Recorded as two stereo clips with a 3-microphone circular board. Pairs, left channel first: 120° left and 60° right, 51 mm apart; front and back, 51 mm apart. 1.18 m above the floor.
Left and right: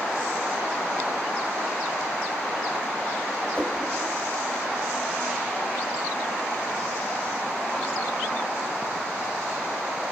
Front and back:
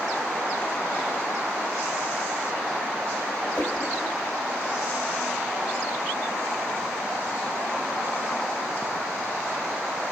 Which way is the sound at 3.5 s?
60° left.